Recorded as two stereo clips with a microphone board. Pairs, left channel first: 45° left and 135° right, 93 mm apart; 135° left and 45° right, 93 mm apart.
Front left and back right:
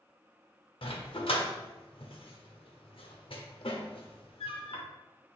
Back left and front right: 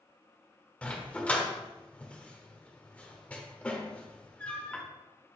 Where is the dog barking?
60° left, 0.9 m.